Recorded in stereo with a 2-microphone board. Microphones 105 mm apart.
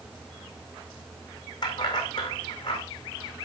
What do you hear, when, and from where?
1.6 s keys jangling: 45° left (ahead or behind), 5 m